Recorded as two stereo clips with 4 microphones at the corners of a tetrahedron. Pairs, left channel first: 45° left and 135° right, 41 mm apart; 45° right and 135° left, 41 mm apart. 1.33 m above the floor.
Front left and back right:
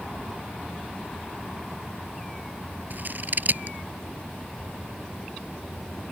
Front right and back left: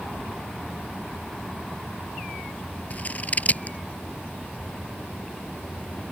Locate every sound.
2.9 s scissors: 95° right